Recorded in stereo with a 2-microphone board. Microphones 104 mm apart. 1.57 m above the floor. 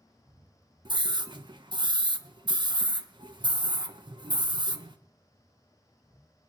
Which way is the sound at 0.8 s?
45° right (ahead or behind).